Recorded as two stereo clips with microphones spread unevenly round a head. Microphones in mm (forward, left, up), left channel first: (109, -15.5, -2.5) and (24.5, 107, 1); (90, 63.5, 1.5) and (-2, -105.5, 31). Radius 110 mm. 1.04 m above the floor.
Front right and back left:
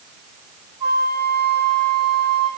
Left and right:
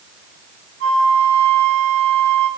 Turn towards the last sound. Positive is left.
turn(degrees=-155)